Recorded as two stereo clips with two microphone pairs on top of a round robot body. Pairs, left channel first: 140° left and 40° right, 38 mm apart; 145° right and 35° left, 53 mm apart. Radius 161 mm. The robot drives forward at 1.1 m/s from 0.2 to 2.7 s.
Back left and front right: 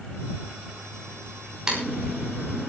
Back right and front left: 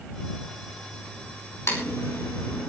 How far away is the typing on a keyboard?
About 7 m.